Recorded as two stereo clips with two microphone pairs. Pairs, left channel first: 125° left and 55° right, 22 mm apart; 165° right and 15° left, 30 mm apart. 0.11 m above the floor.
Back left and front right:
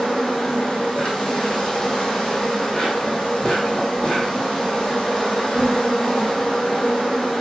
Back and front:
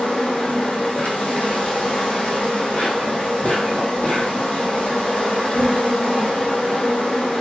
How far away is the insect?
About 1.1 m.